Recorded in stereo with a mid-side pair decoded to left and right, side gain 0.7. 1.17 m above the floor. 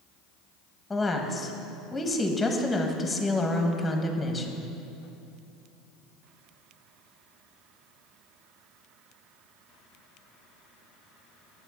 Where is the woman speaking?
10° left, 1.2 m.